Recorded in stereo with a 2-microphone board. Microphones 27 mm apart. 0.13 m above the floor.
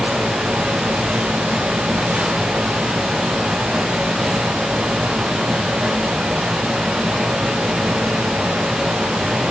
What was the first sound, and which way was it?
Only background noise.